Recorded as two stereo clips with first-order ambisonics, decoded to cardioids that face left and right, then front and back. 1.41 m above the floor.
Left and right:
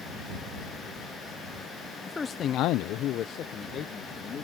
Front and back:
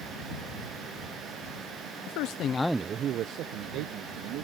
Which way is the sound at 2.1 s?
10° left.